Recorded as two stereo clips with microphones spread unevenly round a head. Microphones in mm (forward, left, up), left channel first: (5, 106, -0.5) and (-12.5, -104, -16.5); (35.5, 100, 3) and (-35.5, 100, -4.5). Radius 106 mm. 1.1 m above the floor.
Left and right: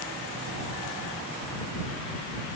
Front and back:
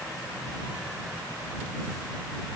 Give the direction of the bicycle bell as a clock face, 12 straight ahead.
I don't hear a bicycle bell.